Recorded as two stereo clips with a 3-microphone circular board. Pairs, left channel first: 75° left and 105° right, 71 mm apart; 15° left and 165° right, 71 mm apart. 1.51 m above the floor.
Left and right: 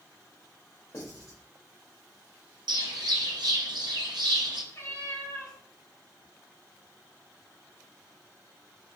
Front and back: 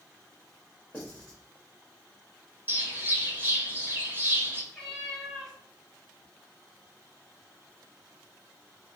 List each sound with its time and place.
0.9 s writing: 85° left, 1.8 m
2.7 s a bird: 110° right, 0.7 m
4.7 s a cat meowing: 95° left, 1.8 m